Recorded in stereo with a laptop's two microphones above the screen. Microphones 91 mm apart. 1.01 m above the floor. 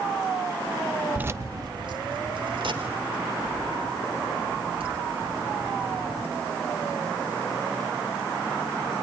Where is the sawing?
I don't hear sawing.